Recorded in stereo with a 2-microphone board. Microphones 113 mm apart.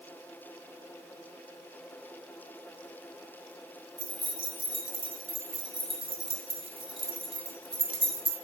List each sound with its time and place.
4.0 s keys jangling: 50° right (ahead or behind), 1.2 m